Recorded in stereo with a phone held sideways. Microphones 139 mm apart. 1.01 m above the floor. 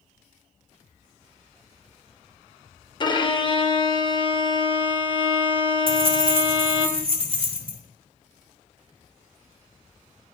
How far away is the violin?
About 0.7 m.